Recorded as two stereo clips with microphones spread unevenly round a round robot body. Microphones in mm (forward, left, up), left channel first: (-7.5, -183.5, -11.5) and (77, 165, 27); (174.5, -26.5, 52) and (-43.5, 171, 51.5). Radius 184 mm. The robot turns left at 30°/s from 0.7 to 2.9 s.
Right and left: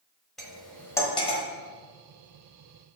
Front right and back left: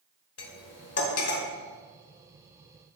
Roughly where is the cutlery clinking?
Ahead.